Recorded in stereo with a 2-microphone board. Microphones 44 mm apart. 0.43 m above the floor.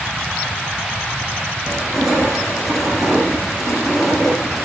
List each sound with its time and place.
1.6 s crushing: centre (ahead or behind), 9.5 m